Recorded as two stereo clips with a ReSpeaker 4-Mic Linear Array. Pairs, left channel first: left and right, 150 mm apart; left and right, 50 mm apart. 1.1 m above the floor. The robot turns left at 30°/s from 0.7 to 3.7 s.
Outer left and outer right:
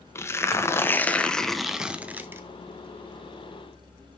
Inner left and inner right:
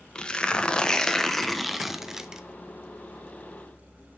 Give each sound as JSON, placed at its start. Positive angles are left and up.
{"t": 0.1, "sound": "tearing paper", "azimuth_deg": 25, "distance_m": 0.8}